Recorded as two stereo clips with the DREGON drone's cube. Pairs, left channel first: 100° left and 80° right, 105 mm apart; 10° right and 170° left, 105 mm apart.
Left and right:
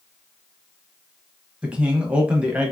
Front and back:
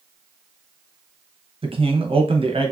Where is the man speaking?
155° right, 0.7 m.